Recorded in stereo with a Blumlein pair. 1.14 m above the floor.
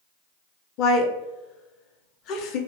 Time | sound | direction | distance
0.8 | a woman speaking | 35° left | 0.5 m